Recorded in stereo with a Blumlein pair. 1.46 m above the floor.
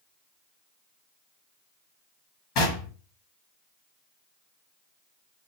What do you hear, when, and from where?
2.5 s knocking: 40° left, 1.2 m